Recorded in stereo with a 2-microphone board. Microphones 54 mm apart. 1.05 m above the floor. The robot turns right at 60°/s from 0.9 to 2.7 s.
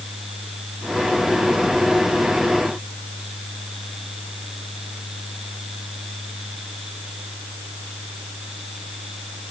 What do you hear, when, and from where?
Only background noise.